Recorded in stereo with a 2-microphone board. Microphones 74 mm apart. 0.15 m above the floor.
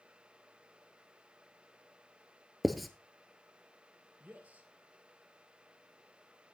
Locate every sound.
2.6 s writing: centre (ahead or behind), 0.9 m
4.2 s a man speaking: 20° right (ahead or behind), 3 m